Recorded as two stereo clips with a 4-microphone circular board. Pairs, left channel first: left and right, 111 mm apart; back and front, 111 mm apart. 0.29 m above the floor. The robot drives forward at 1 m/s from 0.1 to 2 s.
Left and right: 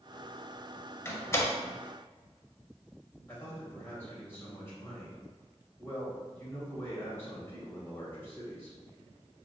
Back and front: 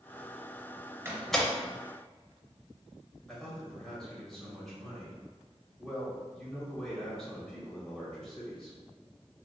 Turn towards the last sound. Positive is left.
turn(degrees=105)